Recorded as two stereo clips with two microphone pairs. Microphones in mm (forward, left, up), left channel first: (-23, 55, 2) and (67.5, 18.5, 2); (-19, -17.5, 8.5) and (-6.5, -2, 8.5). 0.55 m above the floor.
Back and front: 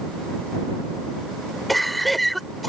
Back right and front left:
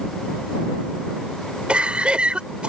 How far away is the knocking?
I don't hear knocking.